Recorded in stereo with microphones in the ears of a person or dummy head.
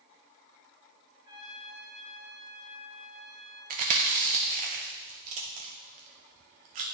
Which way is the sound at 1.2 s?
25° right (ahead or behind).